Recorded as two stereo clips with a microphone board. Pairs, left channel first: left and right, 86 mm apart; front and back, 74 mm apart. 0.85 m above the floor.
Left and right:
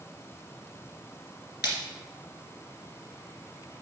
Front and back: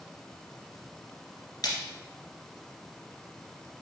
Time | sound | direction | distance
1.6 | a splash | 30° right | 2 m